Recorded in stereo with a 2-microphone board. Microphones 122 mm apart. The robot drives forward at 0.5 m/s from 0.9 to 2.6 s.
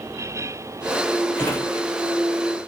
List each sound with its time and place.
1.4 s a drawer: 20° left (ahead or behind), 1.3 m